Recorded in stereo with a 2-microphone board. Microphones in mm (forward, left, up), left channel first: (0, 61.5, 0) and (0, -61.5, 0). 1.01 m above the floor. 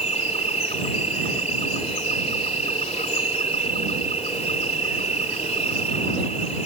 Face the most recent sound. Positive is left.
turn(degrees=65)  # may be behind; listen again after turning